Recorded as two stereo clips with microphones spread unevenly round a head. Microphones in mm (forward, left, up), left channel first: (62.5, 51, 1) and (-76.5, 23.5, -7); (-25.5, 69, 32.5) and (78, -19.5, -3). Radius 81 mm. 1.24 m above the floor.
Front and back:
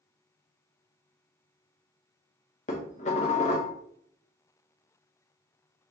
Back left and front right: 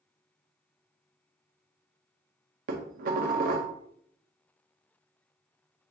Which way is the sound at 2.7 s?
25° right.